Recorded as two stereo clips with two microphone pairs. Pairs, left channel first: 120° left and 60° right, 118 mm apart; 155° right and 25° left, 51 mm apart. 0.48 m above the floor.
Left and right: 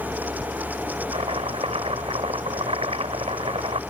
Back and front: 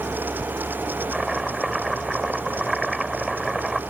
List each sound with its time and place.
1.1 s chopping: 60° right